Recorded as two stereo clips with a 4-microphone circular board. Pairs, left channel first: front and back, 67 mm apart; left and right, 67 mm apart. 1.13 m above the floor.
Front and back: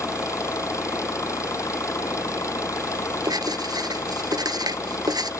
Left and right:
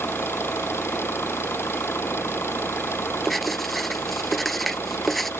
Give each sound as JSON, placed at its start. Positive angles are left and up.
{"t": 0.0, "sound": "an engine running", "azimuth_deg": 40}
{"t": 3.2, "sound": "writing", "azimuth_deg": 180}